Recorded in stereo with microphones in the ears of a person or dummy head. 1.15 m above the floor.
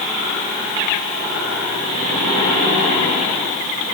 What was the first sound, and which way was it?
Only background noise.